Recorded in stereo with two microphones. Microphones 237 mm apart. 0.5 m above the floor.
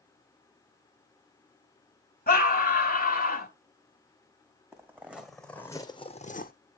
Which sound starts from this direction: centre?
Footsteps, at 4.7 s.